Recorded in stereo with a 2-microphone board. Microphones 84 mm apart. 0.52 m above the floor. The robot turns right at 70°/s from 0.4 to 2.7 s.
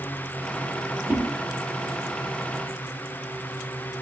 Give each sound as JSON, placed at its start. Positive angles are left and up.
{"t": 1.1, "sound": "a whoosh", "side_deg": -20, "distance_m": 2.0}